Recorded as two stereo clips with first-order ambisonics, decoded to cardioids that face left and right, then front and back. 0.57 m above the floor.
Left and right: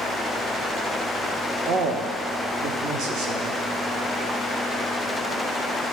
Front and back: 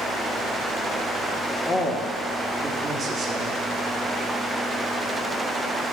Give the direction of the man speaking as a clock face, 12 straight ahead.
2 o'clock.